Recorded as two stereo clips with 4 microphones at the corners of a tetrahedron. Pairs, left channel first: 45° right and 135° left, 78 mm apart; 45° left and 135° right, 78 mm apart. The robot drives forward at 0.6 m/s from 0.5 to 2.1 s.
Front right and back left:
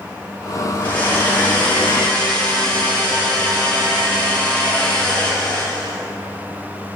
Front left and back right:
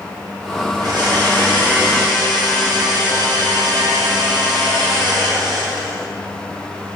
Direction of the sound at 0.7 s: 110° right.